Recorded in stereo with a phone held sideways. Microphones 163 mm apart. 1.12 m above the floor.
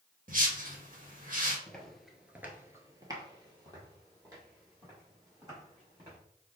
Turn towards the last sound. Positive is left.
turn(degrees=-25)  # may be behind; listen again after turning